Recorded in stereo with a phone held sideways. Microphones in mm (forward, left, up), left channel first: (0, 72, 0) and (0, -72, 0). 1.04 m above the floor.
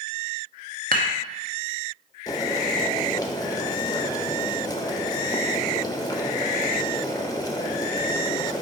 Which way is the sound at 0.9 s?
75° right (ahead or behind).